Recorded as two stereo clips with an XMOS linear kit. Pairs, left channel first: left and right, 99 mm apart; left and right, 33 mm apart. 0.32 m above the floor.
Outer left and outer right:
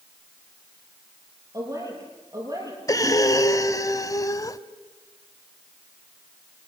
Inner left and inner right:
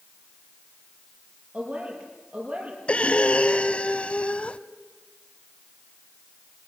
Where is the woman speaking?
35° right (ahead or behind), 7 m.